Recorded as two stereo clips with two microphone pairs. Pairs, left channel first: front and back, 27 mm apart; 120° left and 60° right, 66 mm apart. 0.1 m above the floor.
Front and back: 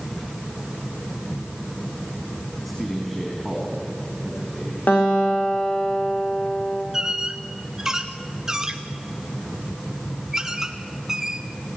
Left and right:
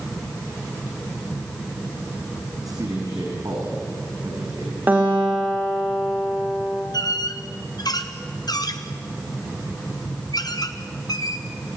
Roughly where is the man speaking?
Right.